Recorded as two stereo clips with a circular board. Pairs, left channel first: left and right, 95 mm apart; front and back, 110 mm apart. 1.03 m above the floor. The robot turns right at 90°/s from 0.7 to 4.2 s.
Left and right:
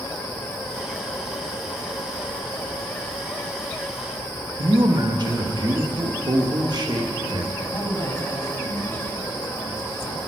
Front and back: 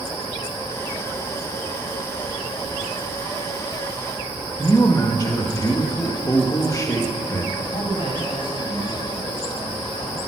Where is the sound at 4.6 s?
55° right, 1.4 m.